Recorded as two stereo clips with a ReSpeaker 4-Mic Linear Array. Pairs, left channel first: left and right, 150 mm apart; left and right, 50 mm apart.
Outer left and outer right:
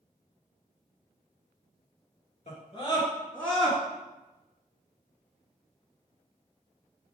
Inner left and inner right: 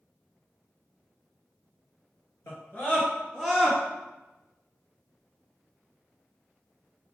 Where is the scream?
45° left (ahead or behind), 2.5 m; by 3.8 s 5° right (ahead or behind), 1.8 m.